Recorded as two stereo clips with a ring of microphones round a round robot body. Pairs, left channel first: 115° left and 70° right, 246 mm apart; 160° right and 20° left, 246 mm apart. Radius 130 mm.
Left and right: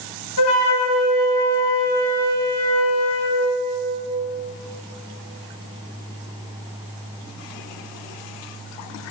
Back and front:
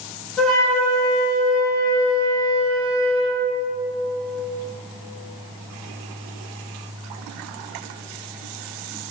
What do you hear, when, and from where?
0.4 s a flute: 115° left, 1.7 m